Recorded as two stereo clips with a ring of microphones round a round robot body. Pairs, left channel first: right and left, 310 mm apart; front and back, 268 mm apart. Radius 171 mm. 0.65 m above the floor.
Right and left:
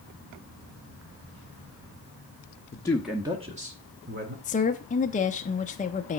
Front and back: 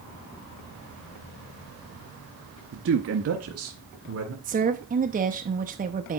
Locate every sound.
2.7 s a man speaking: 155° right, 0.9 m; by 4.3 s 145° left, 2 m
4.4 s a woman speaking: 145° right, 0.6 m